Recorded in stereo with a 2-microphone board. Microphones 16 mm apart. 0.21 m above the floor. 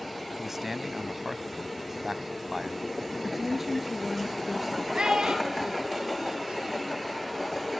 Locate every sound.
0.4 s a man speaking: 20° right (ahead or behind), 1.0 m
3.2 s a woman speaking: 15° right (ahead or behind), 3.5 m
5.0 s a child speaking: 65° right (ahead or behind), 4.5 m